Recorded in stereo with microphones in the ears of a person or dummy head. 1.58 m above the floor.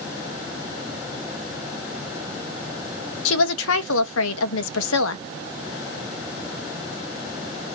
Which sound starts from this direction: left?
A woman speaking, at 3.2 s.